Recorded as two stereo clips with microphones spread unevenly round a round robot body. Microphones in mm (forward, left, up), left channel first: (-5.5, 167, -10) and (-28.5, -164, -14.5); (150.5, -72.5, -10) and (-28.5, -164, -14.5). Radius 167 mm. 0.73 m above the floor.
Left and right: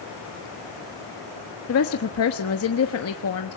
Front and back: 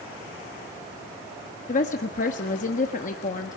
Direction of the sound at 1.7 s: 65° left.